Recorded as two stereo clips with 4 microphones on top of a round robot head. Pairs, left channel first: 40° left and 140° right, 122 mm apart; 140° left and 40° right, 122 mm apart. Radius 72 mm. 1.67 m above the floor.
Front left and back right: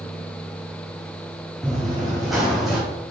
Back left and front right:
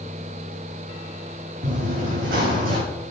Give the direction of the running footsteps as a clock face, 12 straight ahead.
1 o'clock.